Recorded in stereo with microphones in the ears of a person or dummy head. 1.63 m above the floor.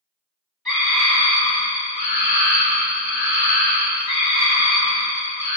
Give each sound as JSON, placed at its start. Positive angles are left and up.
{"t": 0.7, "sound": "a scream", "side_deg": 0, "distance_m": 1.3}